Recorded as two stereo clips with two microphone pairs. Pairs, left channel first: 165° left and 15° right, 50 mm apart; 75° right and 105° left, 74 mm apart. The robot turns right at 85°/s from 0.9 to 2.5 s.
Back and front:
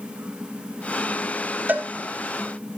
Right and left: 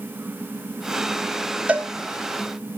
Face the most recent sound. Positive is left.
turn(degrees=105)